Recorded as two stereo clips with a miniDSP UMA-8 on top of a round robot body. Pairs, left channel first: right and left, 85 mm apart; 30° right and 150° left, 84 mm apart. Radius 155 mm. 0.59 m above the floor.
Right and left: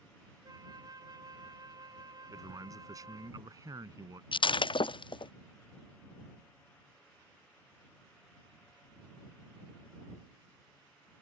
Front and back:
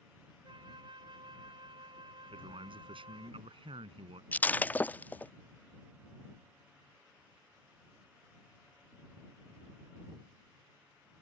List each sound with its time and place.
0.4 s a flute: 130° left
2.3 s a man speaking: 140° left
4.3 s breaking glass: 100° right